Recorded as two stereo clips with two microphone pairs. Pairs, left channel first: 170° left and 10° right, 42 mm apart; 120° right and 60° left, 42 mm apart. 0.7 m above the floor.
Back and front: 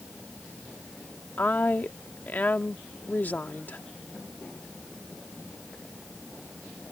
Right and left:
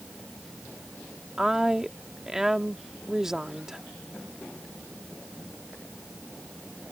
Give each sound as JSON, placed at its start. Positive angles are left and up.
{"t": 1.4, "sound": "a woman speaking", "azimuth_deg": 135}